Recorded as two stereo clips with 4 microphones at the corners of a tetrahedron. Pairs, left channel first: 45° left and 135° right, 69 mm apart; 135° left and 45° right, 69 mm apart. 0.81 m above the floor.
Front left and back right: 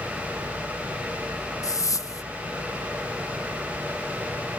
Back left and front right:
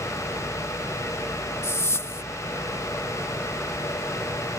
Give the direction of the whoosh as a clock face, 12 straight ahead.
9 o'clock.